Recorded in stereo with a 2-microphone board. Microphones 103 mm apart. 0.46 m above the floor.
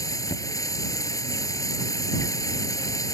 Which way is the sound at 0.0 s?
35° left (ahead or behind).